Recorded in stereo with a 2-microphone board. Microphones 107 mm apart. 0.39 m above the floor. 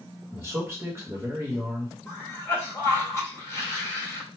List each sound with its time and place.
0.3 s a man speaking: 25° right (ahead or behind), 1.1 m
2.1 s a cough: 25° left (ahead or behind), 1.3 m